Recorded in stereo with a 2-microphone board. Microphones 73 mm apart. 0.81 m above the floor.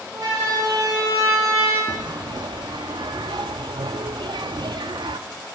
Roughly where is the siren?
Right.